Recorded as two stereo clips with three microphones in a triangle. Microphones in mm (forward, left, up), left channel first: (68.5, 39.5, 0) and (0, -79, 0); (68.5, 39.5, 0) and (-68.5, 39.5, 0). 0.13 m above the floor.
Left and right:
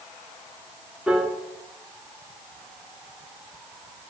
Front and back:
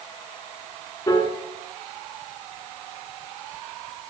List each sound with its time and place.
1.1 s a piano: 40° right, 1.7 m